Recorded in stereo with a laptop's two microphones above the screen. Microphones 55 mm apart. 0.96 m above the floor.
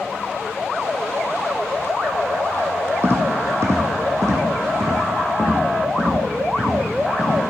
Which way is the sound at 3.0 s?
45° right (ahead or behind).